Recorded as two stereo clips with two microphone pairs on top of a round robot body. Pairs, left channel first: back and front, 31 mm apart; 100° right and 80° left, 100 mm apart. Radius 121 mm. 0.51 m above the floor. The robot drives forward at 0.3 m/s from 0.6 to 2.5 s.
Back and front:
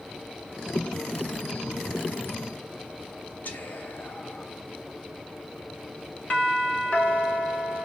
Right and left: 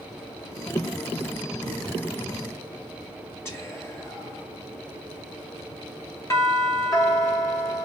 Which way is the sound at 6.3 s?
150° right.